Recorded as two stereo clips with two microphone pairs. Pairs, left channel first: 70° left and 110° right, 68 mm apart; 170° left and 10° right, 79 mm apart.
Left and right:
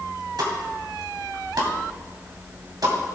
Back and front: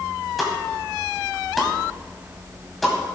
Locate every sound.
0.4 s a pop: 100° right, 2.5 m